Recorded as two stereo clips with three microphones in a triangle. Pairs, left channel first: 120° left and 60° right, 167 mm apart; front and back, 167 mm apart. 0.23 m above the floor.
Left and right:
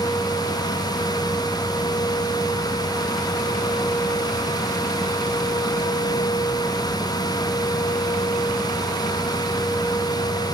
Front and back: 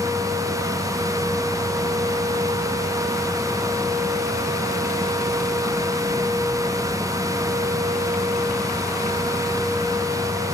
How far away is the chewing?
I don't hear chewing.